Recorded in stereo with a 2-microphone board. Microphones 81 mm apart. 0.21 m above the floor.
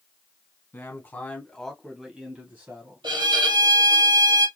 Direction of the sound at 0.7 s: 30° left (ahead or behind).